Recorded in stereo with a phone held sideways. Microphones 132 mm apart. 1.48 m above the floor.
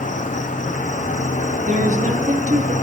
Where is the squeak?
No squeak in this recording.